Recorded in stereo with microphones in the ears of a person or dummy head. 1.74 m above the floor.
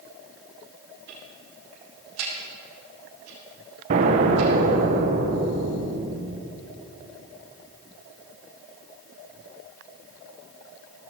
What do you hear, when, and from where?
1.1 s ticking: 75° right (ahead or behind), 3 m
3.9 s an explosion: 40° right (ahead or behind), 0.9 m